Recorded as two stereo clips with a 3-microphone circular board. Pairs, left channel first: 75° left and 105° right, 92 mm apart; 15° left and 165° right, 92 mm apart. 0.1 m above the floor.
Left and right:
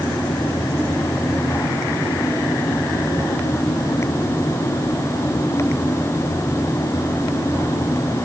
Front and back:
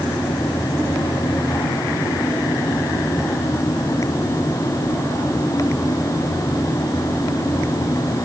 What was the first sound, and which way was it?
Only background noise.